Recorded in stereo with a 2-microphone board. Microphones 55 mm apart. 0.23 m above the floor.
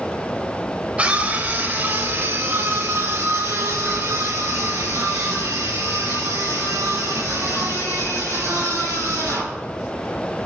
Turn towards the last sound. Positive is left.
turn(degrees=-80)